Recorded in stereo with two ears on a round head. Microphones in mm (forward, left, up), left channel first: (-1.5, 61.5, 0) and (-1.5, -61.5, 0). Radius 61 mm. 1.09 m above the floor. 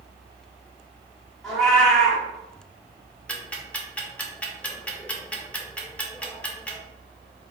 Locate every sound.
1.4 s a cat meowing: 5° left (ahead or behind), 1.2 m
3.3 s ticking: 10° left (ahead or behind), 0.5 m